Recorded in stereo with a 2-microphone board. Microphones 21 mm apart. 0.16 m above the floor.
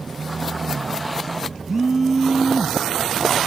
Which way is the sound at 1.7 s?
15° right (ahead or behind).